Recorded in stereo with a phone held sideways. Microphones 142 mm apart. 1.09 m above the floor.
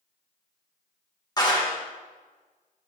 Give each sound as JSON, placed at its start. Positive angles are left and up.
{"t": 1.4, "sound": "a clap", "side_deg": 25, "distance_m": 1.6}